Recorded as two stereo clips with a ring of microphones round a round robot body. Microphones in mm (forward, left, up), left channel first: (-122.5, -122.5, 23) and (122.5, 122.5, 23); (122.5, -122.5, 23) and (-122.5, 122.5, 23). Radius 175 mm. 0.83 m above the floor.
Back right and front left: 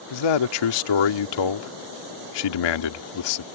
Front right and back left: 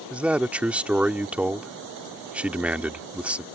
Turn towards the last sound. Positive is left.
turn(degrees=-140)